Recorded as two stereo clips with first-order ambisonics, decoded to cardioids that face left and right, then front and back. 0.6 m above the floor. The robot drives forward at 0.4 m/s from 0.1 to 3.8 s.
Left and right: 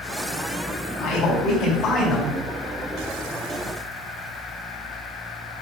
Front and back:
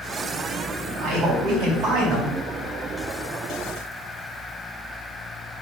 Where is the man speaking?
135° left, 3.5 m; by 2.3 s 140° left, 4 m.